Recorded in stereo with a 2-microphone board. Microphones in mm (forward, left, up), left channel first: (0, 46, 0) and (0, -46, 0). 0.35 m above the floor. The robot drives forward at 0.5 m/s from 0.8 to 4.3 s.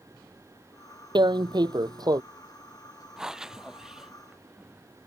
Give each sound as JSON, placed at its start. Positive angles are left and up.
{"t": 1.1, "sound": "tearing paper", "side_deg": -55}
{"t": 3.2, "sound": "breathing", "side_deg": -5}